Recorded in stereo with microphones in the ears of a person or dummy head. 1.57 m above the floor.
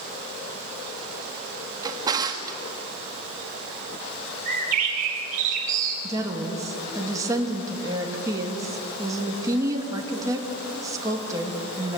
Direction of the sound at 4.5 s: 45° right (ahead or behind).